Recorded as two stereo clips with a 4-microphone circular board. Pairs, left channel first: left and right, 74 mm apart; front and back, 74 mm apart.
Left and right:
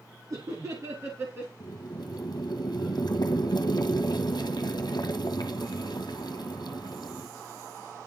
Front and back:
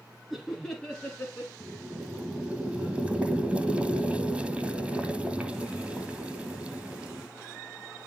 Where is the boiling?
105° left, 1.3 m.